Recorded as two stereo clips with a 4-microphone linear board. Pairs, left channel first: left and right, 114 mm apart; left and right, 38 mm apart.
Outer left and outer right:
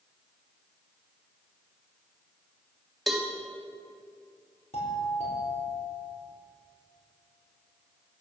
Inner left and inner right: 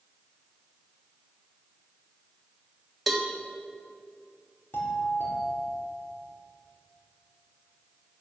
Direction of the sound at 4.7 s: 65° left (ahead or behind).